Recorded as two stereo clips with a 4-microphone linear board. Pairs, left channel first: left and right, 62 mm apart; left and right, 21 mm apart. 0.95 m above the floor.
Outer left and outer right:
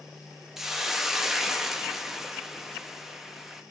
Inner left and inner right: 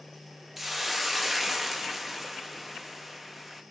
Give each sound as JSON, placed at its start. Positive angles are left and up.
{"t": 0.6, "sound": "a hiss", "side_deg": -5, "distance_m": 0.5}